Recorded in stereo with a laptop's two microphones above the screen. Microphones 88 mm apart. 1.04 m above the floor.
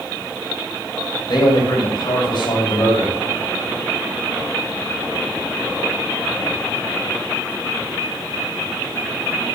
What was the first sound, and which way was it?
A man speaking, 60° left (ahead or behind).